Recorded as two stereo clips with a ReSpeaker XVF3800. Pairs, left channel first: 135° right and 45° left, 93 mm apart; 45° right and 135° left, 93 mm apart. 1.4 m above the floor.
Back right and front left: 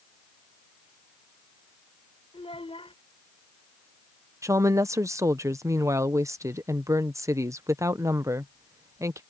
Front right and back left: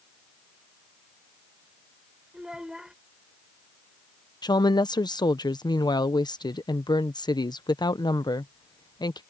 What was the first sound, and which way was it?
A child speaking, 145° right.